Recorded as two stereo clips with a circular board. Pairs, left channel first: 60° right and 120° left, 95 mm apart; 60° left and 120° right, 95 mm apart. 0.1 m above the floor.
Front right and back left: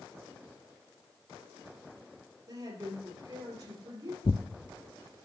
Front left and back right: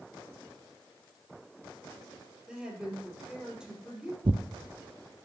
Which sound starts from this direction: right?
Tearing paper, at 4.2 s.